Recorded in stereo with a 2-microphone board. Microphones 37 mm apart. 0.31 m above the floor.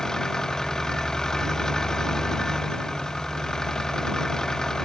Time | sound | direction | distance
0.0 | an engine running | 15° left (ahead or behind) | ?